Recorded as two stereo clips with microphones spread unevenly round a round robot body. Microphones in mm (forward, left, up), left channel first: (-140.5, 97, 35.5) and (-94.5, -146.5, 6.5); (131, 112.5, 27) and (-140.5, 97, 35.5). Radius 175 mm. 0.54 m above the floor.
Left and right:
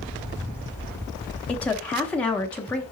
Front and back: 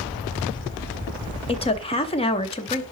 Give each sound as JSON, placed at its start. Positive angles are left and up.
{"t": 1.5, "sound": "a woman speaking", "azimuth_deg": 5, "distance_m": 0.7}